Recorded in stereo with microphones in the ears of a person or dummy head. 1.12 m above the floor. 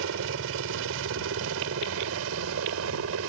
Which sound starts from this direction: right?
A helicopter, at 0.0 s.